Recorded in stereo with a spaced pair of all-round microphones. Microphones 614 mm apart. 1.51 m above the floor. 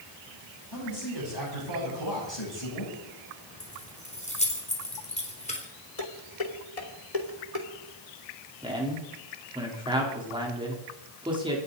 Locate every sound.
0.7 s a man speaking: 40° left (ahead or behind), 10 m; by 2.9 s 45° left (ahead or behind), 8.5 m
3.6 s keys jangling: 10° left (ahead or behind), 3.5 m
6.0 s dishes clattering: 70° left (ahead or behind), 2.5 m
8.6 s a man speaking: 10° right (ahead or behind), 4 m